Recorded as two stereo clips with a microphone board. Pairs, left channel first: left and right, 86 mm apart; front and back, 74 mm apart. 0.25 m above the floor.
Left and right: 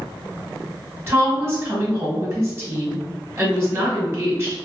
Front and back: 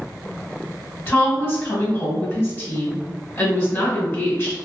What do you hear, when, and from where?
1.1 s a woman speaking: 45° right, 1.3 m